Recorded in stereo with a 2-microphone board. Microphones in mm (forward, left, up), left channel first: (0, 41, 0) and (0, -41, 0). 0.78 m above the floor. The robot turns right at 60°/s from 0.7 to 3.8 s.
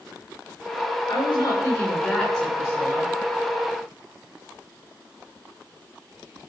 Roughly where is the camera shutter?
I don't hear a camera shutter.